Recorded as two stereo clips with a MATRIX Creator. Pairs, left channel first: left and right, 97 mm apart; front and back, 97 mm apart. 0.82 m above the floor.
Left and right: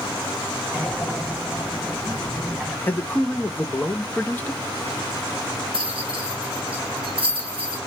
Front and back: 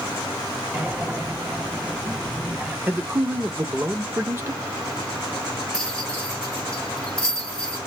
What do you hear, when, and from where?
0.7 s breathing: 175° right, 0.8 m
2.9 s a man speaking: 140° left, 0.6 m
5.7 s a rattle: 80° right, 1.1 m